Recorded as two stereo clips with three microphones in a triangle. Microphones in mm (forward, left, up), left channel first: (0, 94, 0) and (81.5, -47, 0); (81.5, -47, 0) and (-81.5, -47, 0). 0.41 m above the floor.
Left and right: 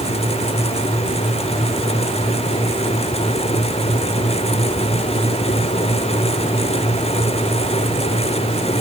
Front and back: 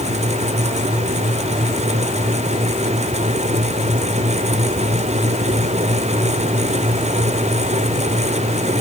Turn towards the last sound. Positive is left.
No sound to turn to.